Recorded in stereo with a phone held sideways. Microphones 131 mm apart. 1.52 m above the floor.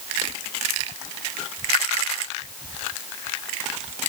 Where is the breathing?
No breathing in this recording.